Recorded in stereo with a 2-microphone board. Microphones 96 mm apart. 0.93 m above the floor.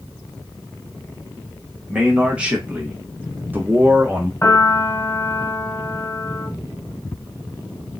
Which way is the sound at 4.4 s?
35° left (ahead or behind).